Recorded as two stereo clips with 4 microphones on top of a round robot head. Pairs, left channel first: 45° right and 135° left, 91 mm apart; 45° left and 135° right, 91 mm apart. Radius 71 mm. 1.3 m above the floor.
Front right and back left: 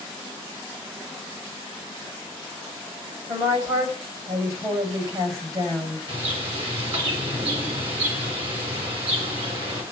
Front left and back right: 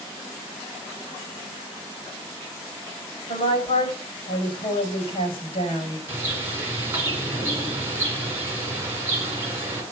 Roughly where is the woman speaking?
Left.